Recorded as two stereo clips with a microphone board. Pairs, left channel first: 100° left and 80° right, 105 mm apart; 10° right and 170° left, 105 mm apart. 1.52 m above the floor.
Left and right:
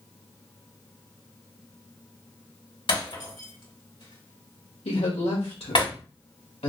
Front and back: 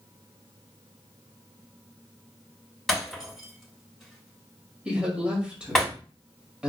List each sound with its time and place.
2.9 s breaking glass: 75° left, 3 m
4.8 s a woman speaking: 90° left, 1.9 m